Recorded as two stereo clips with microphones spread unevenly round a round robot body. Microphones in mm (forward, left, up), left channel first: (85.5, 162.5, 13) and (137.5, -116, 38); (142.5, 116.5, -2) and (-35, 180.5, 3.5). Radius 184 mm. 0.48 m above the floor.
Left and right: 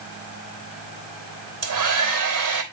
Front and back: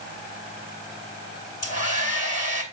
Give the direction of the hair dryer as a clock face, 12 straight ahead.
2 o'clock.